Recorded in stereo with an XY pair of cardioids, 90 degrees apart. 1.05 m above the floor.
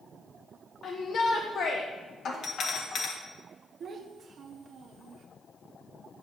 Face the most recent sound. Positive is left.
turn(degrees=-60)